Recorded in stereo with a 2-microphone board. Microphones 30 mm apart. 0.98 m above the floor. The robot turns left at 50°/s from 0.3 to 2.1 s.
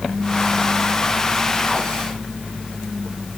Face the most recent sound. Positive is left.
No sound to turn to.